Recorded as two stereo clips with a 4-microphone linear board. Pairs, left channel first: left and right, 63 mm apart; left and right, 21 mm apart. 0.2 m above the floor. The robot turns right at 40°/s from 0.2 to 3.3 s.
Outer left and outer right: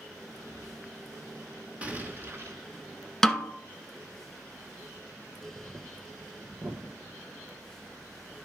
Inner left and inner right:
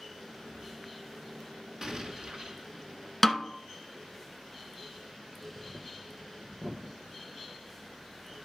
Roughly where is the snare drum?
Centre.